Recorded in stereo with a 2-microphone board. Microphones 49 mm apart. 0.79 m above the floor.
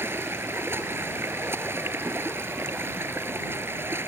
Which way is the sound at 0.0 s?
55° right (ahead or behind).